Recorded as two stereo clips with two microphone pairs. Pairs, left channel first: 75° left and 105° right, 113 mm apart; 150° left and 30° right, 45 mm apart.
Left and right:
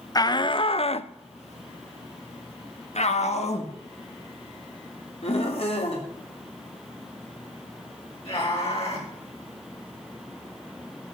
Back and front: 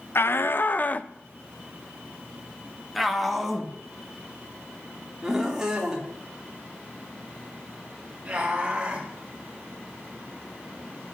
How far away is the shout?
About 0.8 m.